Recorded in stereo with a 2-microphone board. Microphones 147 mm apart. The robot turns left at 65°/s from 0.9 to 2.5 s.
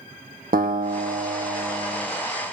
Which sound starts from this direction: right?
A guitar, at 0.5 s.